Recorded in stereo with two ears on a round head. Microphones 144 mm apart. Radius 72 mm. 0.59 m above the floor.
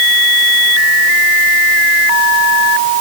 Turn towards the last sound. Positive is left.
No sound to turn to.